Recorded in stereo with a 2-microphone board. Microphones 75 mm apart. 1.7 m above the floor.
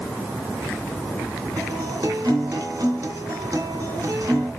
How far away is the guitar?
About 2.5 m.